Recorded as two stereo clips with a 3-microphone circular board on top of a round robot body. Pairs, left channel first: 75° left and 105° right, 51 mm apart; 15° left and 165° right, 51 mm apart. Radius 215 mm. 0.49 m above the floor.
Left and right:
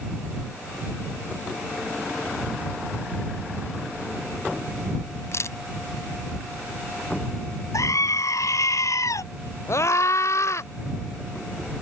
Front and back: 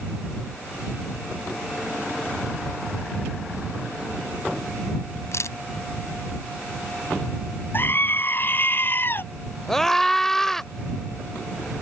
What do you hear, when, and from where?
5.3 s a camera shutter: 45° left
7.7 s a scream: 65° left
9.7 s a scream: 95° left